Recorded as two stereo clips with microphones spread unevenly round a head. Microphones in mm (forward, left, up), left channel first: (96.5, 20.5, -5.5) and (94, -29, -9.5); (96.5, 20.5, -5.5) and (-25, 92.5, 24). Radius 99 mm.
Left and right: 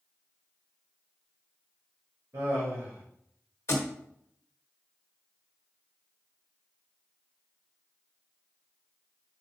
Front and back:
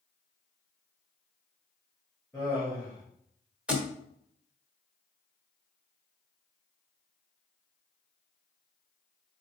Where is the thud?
75° left, 1.0 m.